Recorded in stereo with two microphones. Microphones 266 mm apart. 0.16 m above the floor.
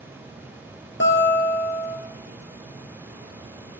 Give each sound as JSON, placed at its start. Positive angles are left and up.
{"t": 1.0, "sound": "a guitar", "side_deg": 50, "distance_m": 1.4}